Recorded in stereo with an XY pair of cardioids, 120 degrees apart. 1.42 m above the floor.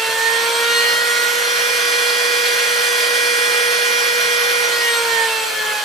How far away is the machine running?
About 1.8 m.